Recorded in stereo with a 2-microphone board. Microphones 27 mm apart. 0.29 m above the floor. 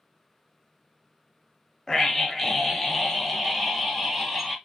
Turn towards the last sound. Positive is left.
turn(degrees=5)  # may be behind; listen again after turning